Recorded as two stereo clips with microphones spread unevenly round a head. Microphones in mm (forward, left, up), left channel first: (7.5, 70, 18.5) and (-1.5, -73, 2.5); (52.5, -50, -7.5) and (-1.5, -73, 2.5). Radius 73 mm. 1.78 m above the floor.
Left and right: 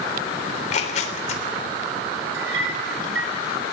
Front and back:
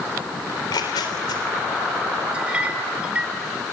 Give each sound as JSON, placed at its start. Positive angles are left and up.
{"t": 0.5, "sound": "tearing paper", "azimuth_deg": 45, "distance_m": 3.5}
{"t": 2.3, "sound": "a clink", "azimuth_deg": -90, "distance_m": 4.0}